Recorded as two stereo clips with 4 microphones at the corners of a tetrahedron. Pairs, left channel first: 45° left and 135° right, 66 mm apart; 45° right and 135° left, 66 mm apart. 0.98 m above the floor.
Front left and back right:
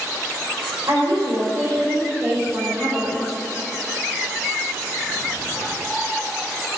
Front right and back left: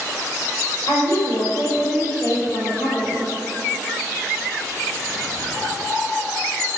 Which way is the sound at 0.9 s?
95° right.